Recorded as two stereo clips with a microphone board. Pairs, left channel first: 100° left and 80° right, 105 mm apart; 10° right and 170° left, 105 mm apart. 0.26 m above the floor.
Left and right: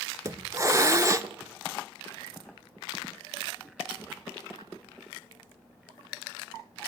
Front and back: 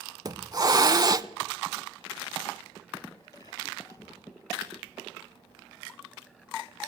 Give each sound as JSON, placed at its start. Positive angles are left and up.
{"t": 0.2, "sound": "a hiss", "azimuth_deg": -135, "distance_m": 0.6}